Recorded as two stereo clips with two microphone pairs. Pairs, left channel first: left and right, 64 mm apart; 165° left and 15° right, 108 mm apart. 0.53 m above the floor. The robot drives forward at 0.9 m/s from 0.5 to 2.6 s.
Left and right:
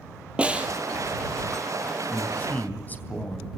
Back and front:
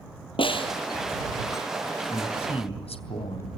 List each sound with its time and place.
0.4 s a snare drum: 160° right, 3 m; by 0.7 s 165° right, 3 m
2.1 s a man speaking: 145° left, 3.5 m; by 3.6 s 150° left, 3.5 m